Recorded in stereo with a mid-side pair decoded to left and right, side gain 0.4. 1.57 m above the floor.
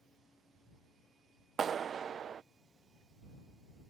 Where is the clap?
55° right.